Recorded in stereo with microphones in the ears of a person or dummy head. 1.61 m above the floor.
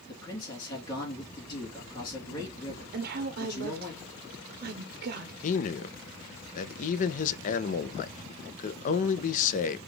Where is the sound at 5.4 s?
45° left (ahead or behind), 0.5 m.